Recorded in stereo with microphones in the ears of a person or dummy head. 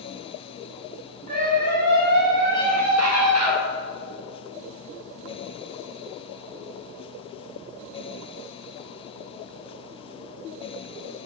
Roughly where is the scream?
Right.